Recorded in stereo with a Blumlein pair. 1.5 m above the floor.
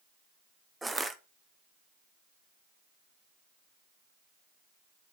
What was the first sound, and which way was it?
Crushing, 10° right.